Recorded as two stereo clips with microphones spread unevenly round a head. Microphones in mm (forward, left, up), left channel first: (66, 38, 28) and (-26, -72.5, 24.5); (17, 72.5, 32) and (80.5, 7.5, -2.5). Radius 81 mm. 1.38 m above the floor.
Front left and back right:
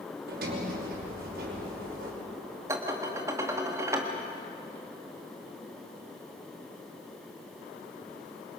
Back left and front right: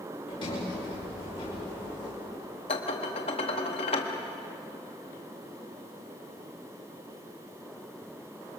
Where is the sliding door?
160° right, 5 m.